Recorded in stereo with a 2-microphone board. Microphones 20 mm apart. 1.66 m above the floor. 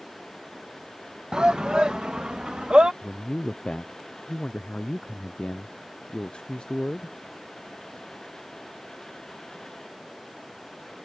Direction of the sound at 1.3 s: 50° right (ahead or behind).